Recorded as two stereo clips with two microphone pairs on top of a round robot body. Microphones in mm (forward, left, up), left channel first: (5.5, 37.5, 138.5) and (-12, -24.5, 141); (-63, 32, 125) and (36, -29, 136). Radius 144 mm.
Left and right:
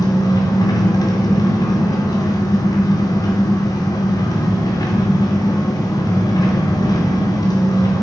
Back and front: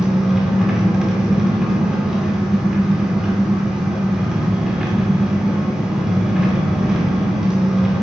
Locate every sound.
0.0 s an engine running: 55° left, 2.5 m